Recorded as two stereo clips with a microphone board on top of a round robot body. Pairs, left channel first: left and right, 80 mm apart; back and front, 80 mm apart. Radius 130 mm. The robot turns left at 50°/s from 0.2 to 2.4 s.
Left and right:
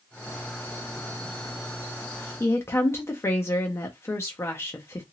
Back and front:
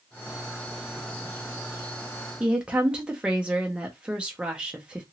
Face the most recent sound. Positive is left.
turn(degrees=70)